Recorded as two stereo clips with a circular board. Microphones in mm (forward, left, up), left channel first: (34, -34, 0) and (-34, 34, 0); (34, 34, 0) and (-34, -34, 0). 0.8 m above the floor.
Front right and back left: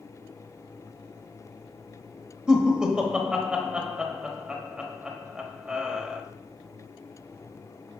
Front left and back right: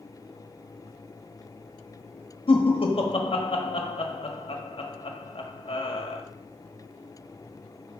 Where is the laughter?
55° left, 1.1 m.